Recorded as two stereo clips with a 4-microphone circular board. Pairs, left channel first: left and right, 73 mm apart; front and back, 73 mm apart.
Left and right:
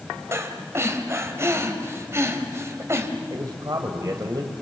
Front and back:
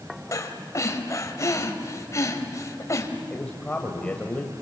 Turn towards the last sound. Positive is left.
turn(degrees=-70)